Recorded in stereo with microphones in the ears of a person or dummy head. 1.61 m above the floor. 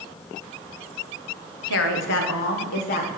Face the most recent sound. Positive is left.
turn(degrees=40)  # may be behind; listen again after turning